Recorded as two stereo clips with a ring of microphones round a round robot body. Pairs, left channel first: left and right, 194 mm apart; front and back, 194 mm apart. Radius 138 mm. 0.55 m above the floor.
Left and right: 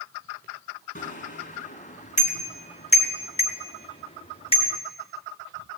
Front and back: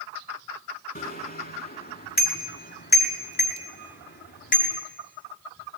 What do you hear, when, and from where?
0.9 s a bicycle bell: 40° left, 4 m; by 4.8 s 30° left, 6 m